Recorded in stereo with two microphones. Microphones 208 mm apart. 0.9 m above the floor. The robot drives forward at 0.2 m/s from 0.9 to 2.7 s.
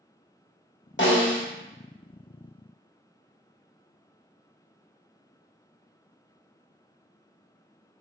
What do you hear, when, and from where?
1.0 s a snare drum: 65° left (ahead or behind), 0.8 m; by 1.4 s 60° left (ahead or behind), 0.8 m